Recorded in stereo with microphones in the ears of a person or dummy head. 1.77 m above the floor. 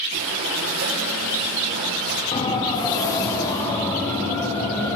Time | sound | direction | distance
0.1 | breathing | 60° right (ahead or behind) | 5.5 m
2.3 | a siren | 35° left (ahead or behind) | 3.5 m